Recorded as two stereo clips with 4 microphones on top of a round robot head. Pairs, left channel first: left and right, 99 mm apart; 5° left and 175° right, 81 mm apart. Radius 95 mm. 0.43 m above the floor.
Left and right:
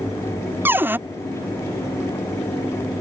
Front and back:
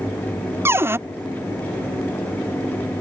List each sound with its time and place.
0.7 s a cupboard door: 145° right